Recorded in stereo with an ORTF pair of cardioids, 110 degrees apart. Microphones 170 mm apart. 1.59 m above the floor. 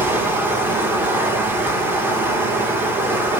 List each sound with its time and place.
0.0 s running water: 10° right, 2.0 m